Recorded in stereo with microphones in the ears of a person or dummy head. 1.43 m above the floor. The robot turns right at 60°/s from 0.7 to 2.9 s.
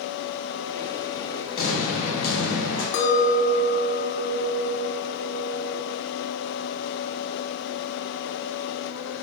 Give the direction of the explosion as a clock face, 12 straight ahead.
11 o'clock.